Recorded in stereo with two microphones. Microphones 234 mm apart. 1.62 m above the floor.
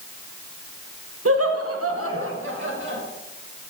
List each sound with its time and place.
1.2 s laughter: 75° right (ahead or behind), 1.1 m; by 3.0 s 55° right (ahead or behind), 2.5 m